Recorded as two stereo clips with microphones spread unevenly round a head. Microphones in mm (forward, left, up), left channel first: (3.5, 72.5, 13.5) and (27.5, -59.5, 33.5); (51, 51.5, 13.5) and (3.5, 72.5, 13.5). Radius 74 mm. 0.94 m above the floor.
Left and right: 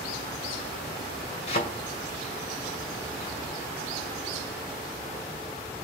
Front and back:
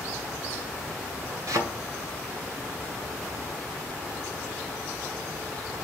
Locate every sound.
1.5 s a thud: 150° left, 2 m